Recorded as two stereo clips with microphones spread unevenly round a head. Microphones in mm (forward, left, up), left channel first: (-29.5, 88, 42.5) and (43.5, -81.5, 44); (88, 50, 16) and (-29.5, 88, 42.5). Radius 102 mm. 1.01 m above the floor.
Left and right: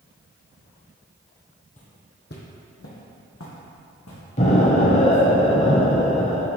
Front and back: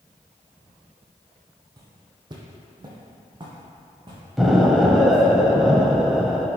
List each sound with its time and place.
1.8 s footsteps: 155° left, 1.3 m; by 5.2 s 120° left, 4 m
4.4 s an explosion: 95° left, 0.9 m